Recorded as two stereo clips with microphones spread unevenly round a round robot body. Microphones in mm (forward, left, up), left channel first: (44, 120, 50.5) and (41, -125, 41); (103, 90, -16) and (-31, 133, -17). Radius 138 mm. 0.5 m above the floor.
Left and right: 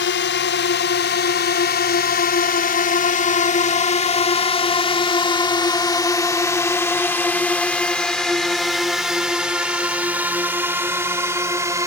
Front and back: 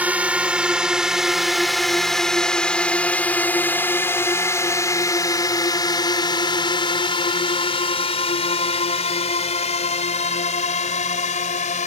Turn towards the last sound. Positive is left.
turn(degrees=-15)